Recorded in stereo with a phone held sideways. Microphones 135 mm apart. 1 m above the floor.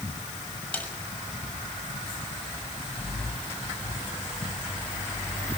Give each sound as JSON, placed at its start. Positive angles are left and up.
{"t": 0.7, "sound": "a snare drum", "side_deg": 10, "distance_m": 6.5}